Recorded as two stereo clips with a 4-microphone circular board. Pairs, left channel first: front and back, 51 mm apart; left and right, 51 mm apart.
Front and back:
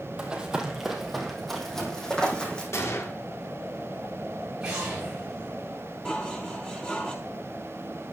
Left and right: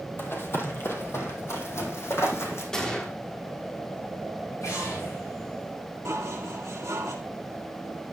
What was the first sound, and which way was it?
Running footsteps, 110° left.